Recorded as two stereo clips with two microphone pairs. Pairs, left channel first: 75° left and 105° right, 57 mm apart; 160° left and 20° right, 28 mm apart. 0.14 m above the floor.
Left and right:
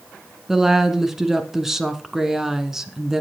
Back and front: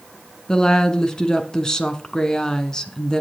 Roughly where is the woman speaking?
Behind.